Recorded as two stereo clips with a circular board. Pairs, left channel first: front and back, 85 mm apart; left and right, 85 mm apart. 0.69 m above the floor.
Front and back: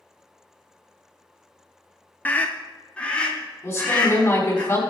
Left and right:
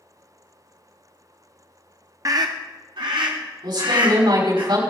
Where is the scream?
60° right, 0.7 m; by 4.6 s 75° right, 3.5 m.